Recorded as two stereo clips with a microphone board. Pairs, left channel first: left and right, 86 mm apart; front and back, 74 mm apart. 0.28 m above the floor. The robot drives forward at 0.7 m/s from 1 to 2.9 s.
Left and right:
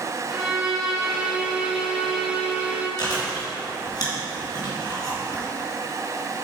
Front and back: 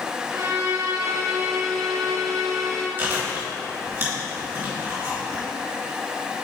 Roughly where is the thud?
No thud in this recording.